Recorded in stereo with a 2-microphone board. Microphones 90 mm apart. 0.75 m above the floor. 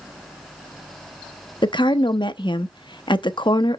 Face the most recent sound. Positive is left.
turn(degrees=60)  # may be behind; listen again after turning